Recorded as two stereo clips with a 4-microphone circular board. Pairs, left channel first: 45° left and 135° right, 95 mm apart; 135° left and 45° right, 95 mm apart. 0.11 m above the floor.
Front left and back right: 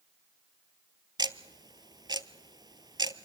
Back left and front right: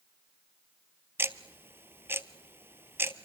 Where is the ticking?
105° right, 0.6 m.